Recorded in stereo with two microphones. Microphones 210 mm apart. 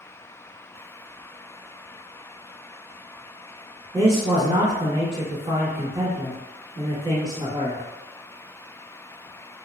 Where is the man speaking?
25° right (ahead or behind), 1.0 m.